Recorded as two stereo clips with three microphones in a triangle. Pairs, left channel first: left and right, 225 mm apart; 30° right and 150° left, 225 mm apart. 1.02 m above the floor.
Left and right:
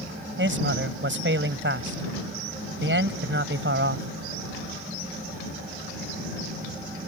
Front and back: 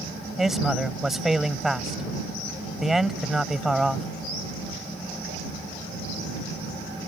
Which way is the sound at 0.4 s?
120° right.